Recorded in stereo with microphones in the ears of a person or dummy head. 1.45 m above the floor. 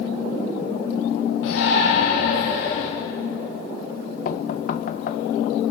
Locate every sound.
1.4 s a shout: 85° left, 3 m; by 2.9 s 65° left (ahead or behind), 3.5 m
4.2 s knocking: 60° left (ahead or behind), 1.2 m